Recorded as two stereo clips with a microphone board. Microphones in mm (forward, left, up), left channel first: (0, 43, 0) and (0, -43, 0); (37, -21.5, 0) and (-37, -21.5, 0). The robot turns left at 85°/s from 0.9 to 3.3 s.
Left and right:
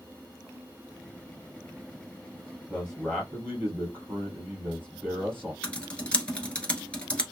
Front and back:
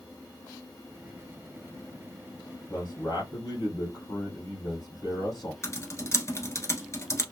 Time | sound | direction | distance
2.7 | a man speaking | 25° left | 2.5 m
5.6 | typing on a keyboard | 20° left | 1.1 m